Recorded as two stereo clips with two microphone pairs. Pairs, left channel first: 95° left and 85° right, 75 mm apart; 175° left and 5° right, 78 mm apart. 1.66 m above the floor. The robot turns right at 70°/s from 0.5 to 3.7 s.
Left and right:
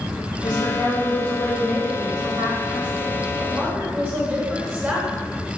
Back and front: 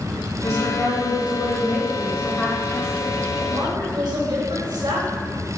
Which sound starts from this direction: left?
A woman speaking, at 0.4 s.